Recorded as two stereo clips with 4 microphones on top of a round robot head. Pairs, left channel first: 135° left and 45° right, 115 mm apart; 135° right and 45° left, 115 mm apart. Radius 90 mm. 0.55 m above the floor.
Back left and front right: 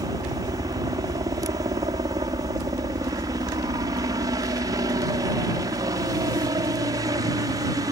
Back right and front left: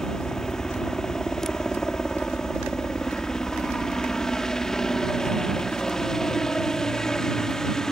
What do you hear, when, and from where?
0.0 s a helicopter: 55° right